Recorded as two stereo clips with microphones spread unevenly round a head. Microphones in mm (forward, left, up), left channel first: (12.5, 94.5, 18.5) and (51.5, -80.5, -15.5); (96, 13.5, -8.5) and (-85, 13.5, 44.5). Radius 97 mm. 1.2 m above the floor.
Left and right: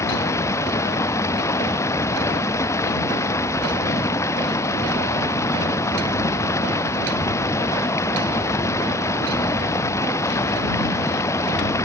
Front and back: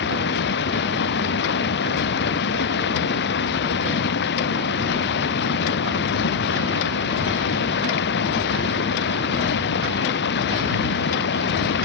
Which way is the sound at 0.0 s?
30° left.